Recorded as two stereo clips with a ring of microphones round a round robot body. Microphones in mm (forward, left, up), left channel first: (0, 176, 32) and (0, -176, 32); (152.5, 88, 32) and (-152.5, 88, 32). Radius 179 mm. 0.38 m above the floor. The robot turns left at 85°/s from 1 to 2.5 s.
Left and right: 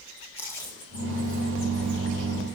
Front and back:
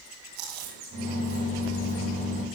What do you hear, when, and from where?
0.4 s chewing: 175° left, 7.5 m; by 2.0 s 90° left, 7.5 m